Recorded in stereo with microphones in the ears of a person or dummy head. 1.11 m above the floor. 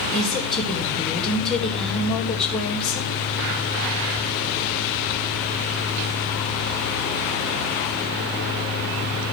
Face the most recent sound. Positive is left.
turn(degrees=0)  # may be behind; listen again after turning